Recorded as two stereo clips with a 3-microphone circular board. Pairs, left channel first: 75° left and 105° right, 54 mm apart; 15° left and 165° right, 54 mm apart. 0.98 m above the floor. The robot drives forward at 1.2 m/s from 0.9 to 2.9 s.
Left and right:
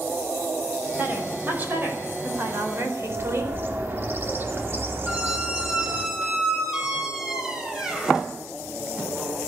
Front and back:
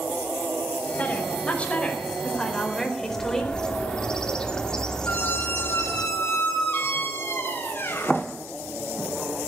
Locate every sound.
1.0 s a woman speaking: 45° right, 5.5 m; by 3.5 s 65° right, 4 m
3.0 s a bird: 60° right, 2 m
5.1 s a squeak: 25° right, 3.5 m